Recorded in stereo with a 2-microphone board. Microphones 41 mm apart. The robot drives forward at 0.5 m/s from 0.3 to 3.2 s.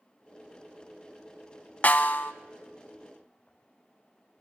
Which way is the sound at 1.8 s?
40° left (ahead or behind).